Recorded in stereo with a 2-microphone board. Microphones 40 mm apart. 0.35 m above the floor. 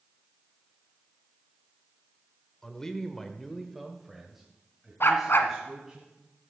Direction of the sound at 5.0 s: 75° left (ahead or behind).